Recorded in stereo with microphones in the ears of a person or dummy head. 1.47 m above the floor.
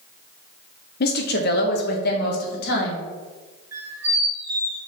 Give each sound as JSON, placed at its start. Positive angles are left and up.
{"t": 1.0, "sound": "a woman speaking", "side_deg": 50, "distance_m": 0.8}
{"t": 3.7, "sound": "a squeak", "side_deg": -15, "distance_m": 2.5}